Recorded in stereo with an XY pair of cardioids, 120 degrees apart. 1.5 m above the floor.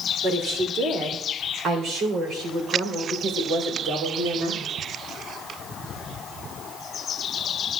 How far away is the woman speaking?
About 3.5 m.